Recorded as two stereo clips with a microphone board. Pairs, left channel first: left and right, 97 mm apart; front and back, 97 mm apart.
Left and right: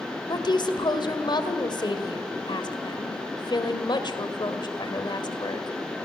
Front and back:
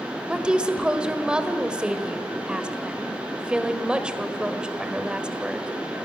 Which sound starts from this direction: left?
A woman speaking, at 0.3 s.